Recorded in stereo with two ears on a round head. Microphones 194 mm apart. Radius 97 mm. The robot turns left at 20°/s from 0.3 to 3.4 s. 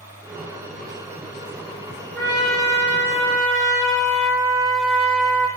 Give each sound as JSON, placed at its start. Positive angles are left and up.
{"t": 2.1, "sound": "a trumpet", "side_deg": 25, "distance_m": 4.5}